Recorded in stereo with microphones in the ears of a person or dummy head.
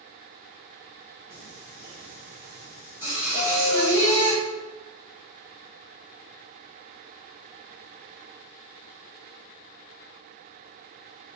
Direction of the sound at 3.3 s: 35° right (ahead or behind).